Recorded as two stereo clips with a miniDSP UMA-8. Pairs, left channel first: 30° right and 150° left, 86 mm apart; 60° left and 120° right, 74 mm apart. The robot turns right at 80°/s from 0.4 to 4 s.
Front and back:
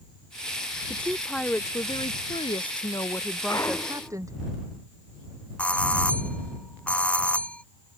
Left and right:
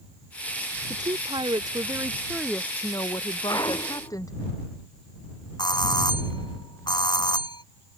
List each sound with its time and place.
0.9 s a woman speaking: 150° right; by 4.3 s 100° left
3.5 s a clunk: 15° left; by 4.2 s 60° left
5.6 s a doorbell: 45° left